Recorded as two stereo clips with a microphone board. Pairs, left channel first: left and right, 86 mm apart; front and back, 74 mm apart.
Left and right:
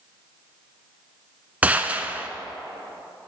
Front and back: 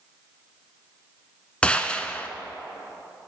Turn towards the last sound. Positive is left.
turn(degrees=-50)